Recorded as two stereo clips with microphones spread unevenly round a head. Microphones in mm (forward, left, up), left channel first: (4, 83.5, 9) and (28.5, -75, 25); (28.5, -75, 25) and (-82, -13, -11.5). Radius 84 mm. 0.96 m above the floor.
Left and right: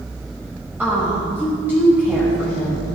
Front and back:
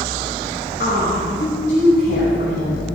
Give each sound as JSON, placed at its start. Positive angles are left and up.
{"t": 0.8, "sound": "a woman speaking", "azimuth_deg": 0, "distance_m": 6.0}